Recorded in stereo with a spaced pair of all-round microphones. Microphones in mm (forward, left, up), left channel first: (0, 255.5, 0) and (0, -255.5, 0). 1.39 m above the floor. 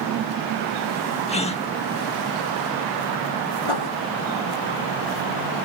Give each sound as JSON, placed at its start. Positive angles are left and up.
{"t": 1.3, "sound": "a gasp", "side_deg": 10}
{"t": 3.6, "sound": "writing", "side_deg": 65}